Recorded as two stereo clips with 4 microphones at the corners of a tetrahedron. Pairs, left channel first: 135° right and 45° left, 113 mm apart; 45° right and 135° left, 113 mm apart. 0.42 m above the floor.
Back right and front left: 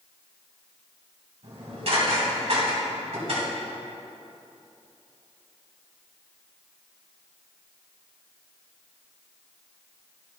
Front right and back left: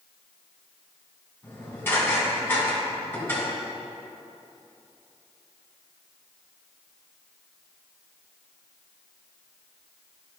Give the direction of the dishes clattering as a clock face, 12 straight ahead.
11 o'clock.